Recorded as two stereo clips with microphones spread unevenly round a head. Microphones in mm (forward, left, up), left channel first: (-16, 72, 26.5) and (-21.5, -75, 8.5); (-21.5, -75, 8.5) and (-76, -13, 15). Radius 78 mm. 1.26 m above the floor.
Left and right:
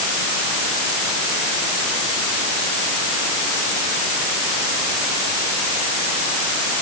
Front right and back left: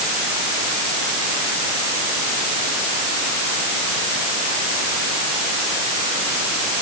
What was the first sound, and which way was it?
Only background noise.